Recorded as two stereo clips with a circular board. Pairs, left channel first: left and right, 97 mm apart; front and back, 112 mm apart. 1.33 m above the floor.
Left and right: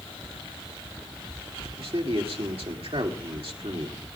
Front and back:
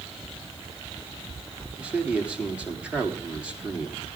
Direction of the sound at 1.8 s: 100° right.